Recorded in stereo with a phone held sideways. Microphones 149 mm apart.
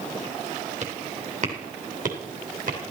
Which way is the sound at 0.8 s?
50° right (ahead or behind).